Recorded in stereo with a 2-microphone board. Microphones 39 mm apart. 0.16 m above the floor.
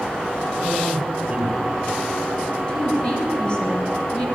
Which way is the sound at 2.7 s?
30° left (ahead or behind).